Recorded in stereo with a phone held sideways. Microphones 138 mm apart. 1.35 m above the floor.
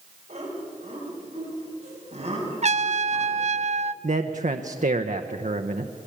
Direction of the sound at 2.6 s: 55° right (ahead or behind).